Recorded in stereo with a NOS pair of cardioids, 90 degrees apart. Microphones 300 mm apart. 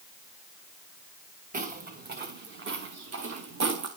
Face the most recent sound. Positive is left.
turn(degrees=-65)